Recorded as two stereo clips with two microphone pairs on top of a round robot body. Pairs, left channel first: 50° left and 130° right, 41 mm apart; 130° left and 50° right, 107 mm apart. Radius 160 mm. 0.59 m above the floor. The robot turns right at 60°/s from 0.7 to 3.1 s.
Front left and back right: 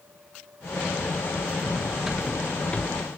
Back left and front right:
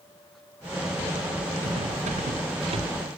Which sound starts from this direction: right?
Cutlery clinking, at 1.6 s.